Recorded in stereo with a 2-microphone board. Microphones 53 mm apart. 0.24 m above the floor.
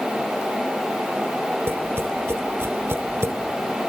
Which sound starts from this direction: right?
Tapping, at 1.7 s.